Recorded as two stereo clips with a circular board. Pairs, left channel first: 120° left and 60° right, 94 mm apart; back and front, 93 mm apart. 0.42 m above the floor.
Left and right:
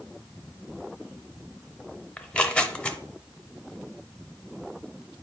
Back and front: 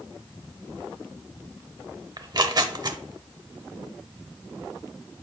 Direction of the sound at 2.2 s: 40° left.